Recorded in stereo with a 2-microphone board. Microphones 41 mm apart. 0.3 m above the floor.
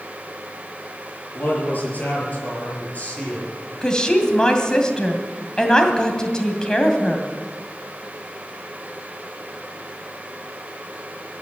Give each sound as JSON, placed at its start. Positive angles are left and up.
{"t": 1.4, "sound": "a man speaking", "side_deg": 45, "distance_m": 7.0}
{"t": 3.8, "sound": "a woman speaking", "side_deg": 20, "distance_m": 2.0}